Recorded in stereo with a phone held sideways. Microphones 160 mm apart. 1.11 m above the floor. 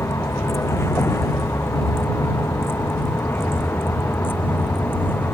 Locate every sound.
0.0 s a vehicle: 15° left (ahead or behind)